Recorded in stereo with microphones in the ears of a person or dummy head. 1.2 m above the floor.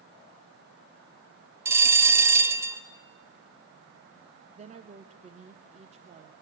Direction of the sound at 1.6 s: 15° right (ahead or behind).